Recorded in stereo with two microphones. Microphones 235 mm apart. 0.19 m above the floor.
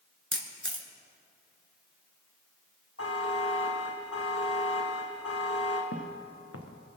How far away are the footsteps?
About 1.9 m.